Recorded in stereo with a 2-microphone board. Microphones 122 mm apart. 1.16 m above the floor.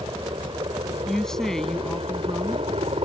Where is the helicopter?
40° right (ahead or behind); by 3.0 s 55° right (ahead or behind).